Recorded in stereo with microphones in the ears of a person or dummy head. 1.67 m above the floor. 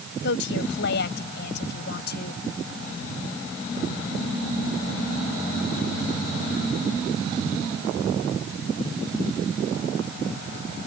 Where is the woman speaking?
70° left (ahead or behind); by 2.4 s 60° left (ahead or behind).